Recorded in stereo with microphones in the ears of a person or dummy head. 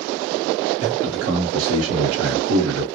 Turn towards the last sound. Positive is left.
turn(degrees=-80)